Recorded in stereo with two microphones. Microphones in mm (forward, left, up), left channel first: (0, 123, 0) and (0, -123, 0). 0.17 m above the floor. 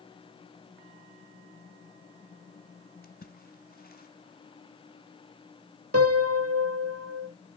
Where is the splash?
40° left (ahead or behind), 1.3 m.